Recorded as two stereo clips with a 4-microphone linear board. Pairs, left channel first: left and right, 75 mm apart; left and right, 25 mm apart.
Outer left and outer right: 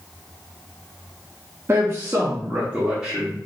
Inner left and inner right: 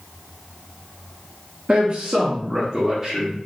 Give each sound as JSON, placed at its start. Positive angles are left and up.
{"t": 1.7, "sound": "a man speaking", "side_deg": -40, "distance_m": 0.5}